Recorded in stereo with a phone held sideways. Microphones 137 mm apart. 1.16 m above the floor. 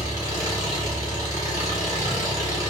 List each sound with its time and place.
0.0 s an engine running: 25° right (ahead or behind), 1.7 m